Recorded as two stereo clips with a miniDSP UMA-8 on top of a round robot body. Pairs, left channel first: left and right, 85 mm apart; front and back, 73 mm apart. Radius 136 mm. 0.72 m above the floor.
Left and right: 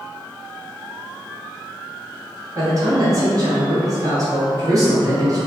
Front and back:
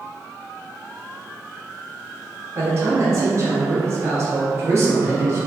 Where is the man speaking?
130° right, 1.3 m.